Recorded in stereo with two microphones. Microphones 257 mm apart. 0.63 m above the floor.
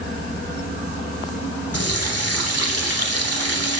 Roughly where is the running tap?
Left.